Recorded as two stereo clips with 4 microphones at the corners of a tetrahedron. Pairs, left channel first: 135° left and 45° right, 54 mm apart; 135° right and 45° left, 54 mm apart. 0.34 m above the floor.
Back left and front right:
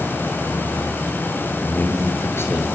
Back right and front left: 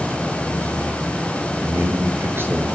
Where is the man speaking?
85° left, 5.5 m; by 2.8 s 95° left, 6 m.